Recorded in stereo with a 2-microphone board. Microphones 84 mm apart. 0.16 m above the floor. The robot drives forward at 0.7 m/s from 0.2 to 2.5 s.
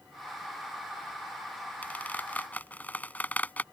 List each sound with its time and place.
1.8 s a squeak: 20° left (ahead or behind)